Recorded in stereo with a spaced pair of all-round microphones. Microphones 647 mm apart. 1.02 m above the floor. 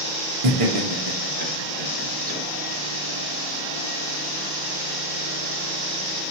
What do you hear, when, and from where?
0.4 s laughter: 50° right (ahead or behind), 0.9 m; by 2.4 s 60° right (ahead or behind), 1.9 m